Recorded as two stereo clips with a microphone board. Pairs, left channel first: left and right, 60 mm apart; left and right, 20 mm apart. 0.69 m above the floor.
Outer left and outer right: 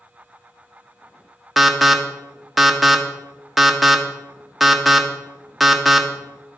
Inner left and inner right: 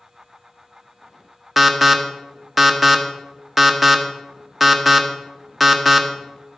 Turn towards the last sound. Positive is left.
turn(degrees=0)  # may be behind; listen again after turning